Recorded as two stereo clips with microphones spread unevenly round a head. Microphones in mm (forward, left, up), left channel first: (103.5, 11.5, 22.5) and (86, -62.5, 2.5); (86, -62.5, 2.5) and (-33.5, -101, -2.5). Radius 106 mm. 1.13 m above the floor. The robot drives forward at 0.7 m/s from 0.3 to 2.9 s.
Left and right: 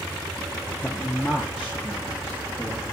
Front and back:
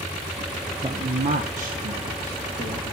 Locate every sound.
0.8 s a man speaking: 165° left, 0.5 m; by 2.9 s straight behind, 1.8 m